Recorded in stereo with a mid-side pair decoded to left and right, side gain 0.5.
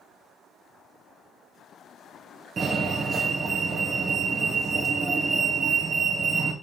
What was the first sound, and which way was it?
A fire alarm, 40° right.